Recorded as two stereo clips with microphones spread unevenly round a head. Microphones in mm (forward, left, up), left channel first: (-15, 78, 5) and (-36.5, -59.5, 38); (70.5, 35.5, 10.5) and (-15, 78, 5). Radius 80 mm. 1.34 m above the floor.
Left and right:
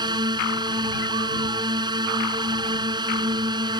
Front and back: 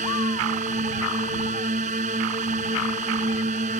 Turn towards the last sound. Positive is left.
turn(degrees=-160)